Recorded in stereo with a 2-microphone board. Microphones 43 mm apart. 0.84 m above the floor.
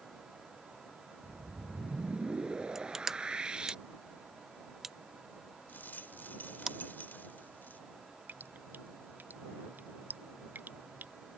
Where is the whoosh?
20° right (ahead or behind).